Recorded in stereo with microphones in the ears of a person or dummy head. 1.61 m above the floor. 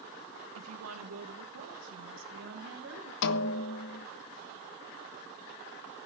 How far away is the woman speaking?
About 1.8 m.